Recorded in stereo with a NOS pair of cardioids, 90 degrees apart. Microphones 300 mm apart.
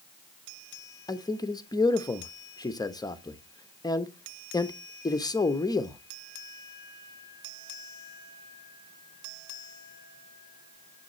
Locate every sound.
1.1 s a man speaking: 10° left, 1.0 m